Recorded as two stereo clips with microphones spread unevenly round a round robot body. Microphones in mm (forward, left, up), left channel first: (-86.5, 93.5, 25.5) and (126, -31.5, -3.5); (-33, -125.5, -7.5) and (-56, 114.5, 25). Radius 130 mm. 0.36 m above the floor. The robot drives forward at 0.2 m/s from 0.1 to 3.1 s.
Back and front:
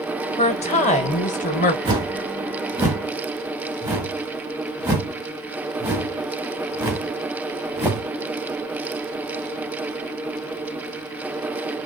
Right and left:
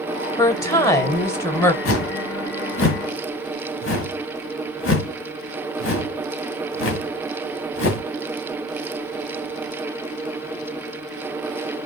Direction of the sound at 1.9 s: 100° right.